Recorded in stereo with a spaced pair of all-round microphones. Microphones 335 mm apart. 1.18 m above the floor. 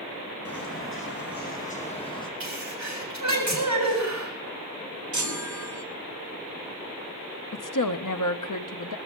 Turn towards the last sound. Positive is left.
turn(degrees=65)  # may be behind; listen again after turning